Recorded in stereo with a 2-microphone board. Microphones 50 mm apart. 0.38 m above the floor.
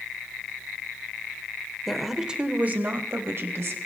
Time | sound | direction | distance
1.9 | a woman speaking | 5° left (ahead or behind) | 1.1 m